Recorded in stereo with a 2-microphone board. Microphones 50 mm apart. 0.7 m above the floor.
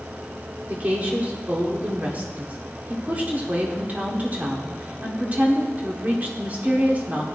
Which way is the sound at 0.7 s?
35° right (ahead or behind).